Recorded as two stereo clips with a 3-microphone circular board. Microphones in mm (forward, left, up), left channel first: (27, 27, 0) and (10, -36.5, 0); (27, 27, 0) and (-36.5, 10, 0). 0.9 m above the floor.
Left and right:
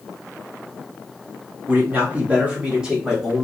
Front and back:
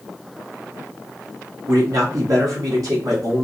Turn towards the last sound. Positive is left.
turn(degrees=175)